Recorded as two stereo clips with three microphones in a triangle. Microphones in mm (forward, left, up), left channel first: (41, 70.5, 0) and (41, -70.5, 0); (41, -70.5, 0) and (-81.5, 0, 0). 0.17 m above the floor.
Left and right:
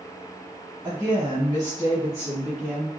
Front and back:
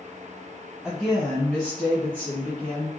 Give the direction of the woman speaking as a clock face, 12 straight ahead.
5 o'clock.